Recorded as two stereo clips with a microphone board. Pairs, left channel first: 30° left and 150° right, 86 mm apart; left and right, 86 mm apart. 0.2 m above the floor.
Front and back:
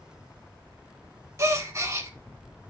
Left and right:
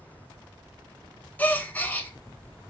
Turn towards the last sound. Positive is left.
turn(degrees=160)